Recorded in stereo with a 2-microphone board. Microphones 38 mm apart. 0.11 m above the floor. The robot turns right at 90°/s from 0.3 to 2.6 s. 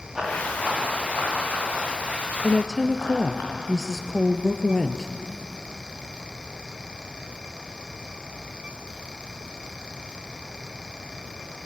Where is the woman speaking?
15° left (ahead or behind), 1.8 m; by 5.1 s centre (ahead or behind), 1.8 m.